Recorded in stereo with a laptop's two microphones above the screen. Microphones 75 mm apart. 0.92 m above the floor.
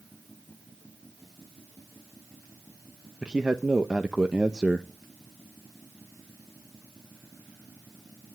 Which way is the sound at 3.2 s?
10° right (ahead or behind).